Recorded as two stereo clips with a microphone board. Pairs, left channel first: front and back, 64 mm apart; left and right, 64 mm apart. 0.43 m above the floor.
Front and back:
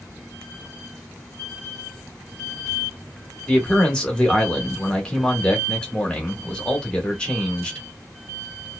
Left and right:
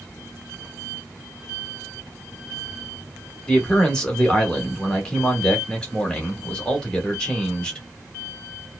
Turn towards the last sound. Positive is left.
turn(degrees=45)